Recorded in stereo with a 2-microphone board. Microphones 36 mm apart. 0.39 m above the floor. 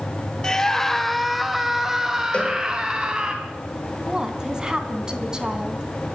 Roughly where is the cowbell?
Left.